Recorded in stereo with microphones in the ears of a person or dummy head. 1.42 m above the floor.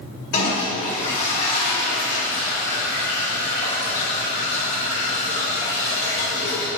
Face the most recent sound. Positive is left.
turn(degrees=45)  # may be behind; listen again after turning